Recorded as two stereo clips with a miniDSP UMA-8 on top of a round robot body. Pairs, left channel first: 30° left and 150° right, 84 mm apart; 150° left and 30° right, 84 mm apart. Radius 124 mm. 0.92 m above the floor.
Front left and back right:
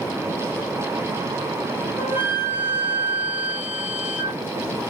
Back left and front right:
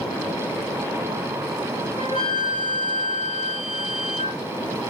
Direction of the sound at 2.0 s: 140° left.